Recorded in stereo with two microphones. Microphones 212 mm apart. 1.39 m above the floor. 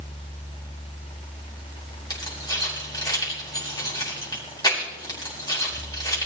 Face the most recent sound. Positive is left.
turn(degrees=20)  # may be behind; listen again after turning